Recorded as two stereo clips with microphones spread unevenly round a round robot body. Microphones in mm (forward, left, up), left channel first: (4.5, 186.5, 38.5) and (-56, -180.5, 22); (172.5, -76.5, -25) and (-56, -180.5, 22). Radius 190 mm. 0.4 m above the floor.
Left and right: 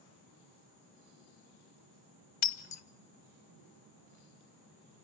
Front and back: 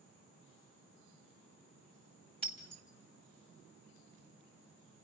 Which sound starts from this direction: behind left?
Breaking glass, at 2.4 s.